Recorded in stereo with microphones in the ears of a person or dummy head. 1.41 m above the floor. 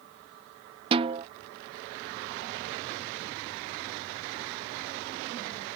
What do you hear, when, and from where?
0.9 s a snare drum: 35° right (ahead or behind)